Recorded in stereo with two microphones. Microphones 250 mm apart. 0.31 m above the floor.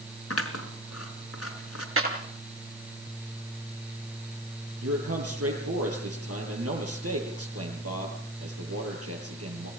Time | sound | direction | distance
0.3 | scissors | 70° left (ahead or behind) | 3.5 m
2.0 | a clap | 60° right (ahead or behind) | 5 m
4.8 | a man speaking | 70° right (ahead or behind) | 8.5 m